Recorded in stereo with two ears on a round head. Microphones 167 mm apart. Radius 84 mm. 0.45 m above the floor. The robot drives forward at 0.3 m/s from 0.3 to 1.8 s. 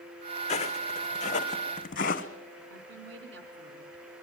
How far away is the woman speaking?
About 4 m.